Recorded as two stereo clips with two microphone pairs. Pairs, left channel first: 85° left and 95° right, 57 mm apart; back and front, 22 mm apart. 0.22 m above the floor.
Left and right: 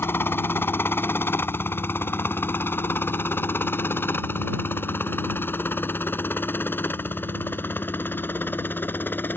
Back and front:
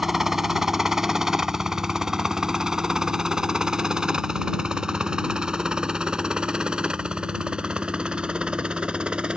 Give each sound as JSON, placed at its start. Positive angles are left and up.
{"t": 0.0, "sound": "a helicopter", "azimuth_deg": 70}